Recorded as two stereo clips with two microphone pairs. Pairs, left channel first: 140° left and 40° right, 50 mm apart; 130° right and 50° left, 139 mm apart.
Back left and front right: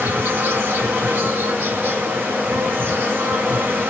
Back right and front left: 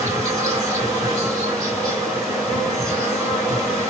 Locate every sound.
0.0 s an insect: 10° right, 2.5 m